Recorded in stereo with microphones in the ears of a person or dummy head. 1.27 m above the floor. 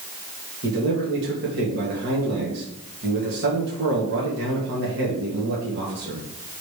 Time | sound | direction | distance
0.6 | a man speaking | 55° right (ahead or behind) | 2 m